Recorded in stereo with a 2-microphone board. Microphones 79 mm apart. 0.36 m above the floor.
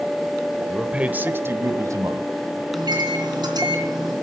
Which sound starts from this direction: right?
A microwave, at 2.7 s.